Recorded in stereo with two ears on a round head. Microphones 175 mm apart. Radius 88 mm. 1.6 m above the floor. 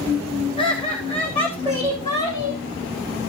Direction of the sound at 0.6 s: 25° left (ahead or behind).